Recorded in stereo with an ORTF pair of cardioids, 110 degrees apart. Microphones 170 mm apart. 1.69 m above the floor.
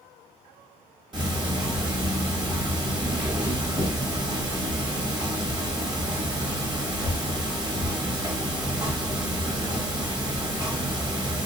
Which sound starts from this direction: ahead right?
Ticking, at 1.1 s.